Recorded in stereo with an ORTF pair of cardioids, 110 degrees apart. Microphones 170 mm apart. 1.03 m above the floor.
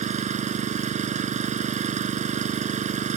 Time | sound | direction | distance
0.0 | an engine running | 45° right | ?